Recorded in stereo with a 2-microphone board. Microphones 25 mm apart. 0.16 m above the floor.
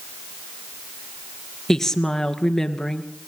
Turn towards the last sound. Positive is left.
turn(degrees=15)  # may be behind; listen again after turning